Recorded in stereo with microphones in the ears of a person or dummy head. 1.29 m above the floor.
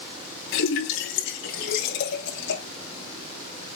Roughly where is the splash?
Left.